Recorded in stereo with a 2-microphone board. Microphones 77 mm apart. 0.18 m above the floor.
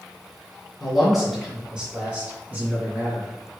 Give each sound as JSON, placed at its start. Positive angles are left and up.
{"t": 0.8, "sound": "a man speaking", "side_deg": 5, "distance_m": 1.7}